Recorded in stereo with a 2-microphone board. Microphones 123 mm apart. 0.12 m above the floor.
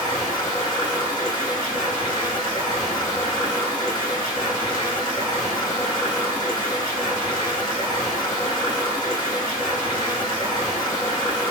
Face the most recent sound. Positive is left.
turn(degrees=30)  # may be behind; listen again after turning